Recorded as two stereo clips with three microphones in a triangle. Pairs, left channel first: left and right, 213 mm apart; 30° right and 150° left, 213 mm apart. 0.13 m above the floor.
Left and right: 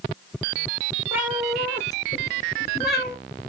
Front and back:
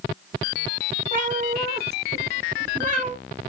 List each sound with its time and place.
1.1 s a cat meowing: 165° right, 1.0 m; by 3.2 s 100° left, 1.1 m